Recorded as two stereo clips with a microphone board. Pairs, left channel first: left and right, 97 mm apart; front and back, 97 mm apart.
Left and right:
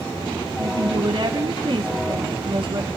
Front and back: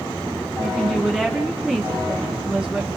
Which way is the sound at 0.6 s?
100° right.